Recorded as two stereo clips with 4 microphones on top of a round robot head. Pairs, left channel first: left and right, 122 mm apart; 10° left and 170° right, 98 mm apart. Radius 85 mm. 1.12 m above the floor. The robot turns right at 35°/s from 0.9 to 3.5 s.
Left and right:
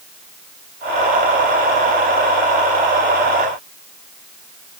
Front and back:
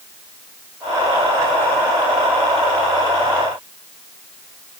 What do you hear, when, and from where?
Only background noise.